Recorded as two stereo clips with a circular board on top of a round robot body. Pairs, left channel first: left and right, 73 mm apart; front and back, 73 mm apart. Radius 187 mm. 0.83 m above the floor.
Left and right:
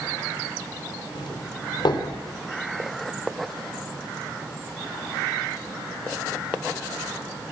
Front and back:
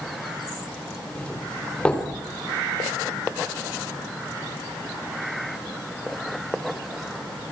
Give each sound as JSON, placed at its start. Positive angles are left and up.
{"t": 1.1, "sound": "a doorbell", "azimuth_deg": 75, "distance_m": 4.5}